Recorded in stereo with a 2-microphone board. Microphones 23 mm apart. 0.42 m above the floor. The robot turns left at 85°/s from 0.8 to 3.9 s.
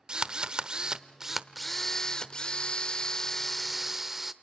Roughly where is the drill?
Behind right.